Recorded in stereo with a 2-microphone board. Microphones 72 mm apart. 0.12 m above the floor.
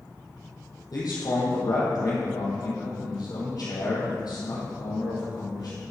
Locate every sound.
0.9 s a man speaking: 60° left (ahead or behind), 3 m